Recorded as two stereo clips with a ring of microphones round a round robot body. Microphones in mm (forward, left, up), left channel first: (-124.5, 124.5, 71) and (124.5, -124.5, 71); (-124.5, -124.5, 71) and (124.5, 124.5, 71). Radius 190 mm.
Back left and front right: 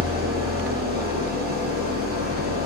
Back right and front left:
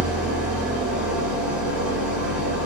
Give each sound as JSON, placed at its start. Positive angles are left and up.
{"t": 0.0, "sound": "an engine running", "azimuth_deg": -40, "distance_m": 0.9}